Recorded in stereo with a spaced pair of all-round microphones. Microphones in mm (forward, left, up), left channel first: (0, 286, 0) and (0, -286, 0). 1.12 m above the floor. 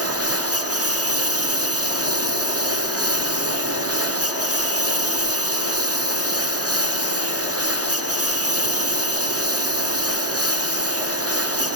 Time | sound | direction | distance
0.0 | a lawn mower | 25° right (ahead or behind) | ?